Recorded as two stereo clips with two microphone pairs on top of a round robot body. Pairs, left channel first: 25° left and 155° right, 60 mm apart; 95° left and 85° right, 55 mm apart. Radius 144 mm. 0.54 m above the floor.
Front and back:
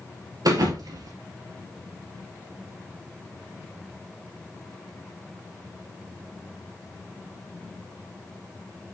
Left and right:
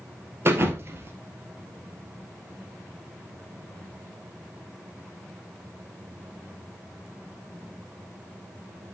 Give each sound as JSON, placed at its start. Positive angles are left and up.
{"t": 0.5, "sound": "a thud", "azimuth_deg": -135, "distance_m": 1.7}